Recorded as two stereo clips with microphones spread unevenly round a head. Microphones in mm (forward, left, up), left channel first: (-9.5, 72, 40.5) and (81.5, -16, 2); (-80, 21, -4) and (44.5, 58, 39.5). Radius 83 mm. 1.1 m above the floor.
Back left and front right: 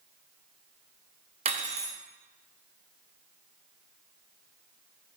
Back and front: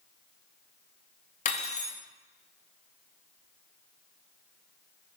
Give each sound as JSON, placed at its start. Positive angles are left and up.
{"t": 1.4, "sound": "cutlery clinking", "azimuth_deg": -105, "distance_m": 0.7}